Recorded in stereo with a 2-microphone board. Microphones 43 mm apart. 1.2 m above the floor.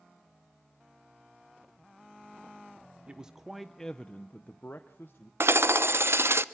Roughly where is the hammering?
Right.